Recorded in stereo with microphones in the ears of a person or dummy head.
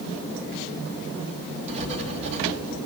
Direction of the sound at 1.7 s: 30° right (ahead or behind).